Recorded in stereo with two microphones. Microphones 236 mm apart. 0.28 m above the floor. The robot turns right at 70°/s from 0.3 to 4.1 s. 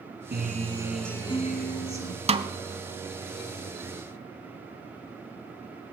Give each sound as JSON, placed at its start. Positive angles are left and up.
{"t": 0.3, "sound": "a guitar", "azimuth_deg": -50, "distance_m": 1.4}
{"t": 2.3, "sound": "a snare drum", "side_deg": -25, "distance_m": 0.8}